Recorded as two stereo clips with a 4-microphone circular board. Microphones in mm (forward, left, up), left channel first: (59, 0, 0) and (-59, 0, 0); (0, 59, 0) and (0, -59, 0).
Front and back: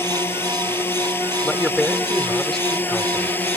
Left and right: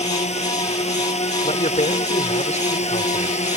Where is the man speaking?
85° left.